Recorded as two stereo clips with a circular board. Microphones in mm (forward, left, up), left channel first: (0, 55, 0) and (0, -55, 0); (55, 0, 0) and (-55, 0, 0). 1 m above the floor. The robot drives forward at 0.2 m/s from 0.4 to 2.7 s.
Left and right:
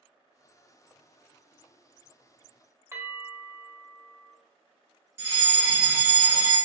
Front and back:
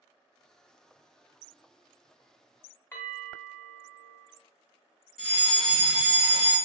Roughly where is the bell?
Ahead right.